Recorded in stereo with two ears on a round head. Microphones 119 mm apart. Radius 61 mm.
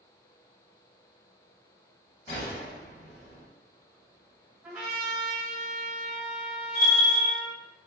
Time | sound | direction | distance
2.3 | a gunshot | 50° left (ahead or behind) | 0.8 m
4.6 | a trumpet | 10° right (ahead or behind) | 1.0 m
6.8 | a bell | 30° left (ahead or behind) | 0.7 m